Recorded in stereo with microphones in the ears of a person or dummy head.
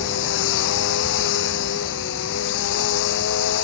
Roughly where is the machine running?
Left.